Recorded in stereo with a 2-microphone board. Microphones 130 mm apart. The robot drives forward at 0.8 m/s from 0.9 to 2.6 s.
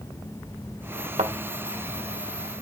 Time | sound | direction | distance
1.2 | a thud | 65° right (ahead or behind) | 2.0 m